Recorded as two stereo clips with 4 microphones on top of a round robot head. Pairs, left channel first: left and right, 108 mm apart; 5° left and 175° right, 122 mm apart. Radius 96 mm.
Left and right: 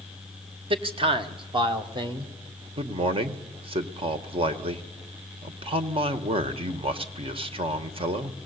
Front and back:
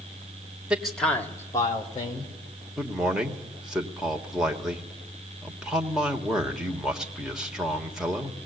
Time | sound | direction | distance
0.7 | a man speaking | 90° right | 1.4 m
2.8 | a man speaking | 90° right | 1.4 m